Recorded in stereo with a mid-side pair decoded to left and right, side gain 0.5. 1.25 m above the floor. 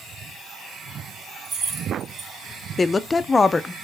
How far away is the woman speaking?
About 0.5 m.